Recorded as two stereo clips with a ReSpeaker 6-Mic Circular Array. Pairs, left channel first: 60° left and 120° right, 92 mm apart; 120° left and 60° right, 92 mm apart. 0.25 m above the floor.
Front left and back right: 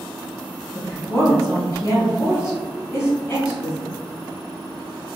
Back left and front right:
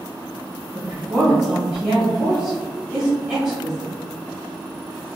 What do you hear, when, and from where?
0.7 s a woman speaking: 35° left, 1.7 m